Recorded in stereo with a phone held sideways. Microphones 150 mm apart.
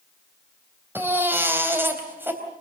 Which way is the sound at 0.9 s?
15° right (ahead or behind).